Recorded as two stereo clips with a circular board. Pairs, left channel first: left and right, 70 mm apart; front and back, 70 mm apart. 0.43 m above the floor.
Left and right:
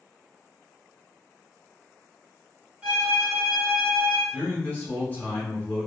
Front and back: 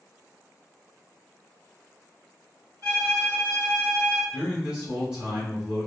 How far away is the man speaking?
About 1.4 m.